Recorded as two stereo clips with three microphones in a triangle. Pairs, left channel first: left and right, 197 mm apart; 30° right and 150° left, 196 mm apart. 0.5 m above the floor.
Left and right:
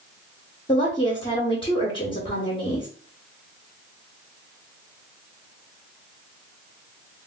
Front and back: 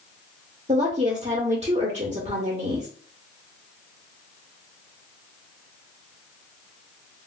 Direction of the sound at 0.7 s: 130° left.